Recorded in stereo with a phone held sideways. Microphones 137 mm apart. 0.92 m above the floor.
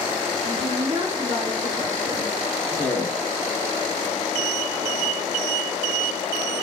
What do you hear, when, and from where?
0.4 s a woman speaking: 50° right (ahead or behind), 2.5 m; by 2.3 s 30° right (ahead or behind), 3 m
2.7 s a man speaking: 20° left (ahead or behind), 2 m